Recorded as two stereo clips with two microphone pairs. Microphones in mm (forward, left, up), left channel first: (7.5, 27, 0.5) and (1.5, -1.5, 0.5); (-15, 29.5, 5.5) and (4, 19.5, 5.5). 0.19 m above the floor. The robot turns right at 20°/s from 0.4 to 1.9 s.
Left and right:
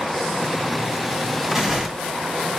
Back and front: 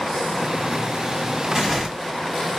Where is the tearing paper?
25° right, 1.2 m; by 1.9 s 15° right, 1.2 m.